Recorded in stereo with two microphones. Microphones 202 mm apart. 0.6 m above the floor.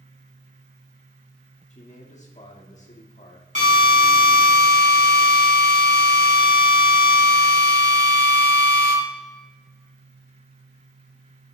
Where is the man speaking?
35° left (ahead or behind), 1.5 m.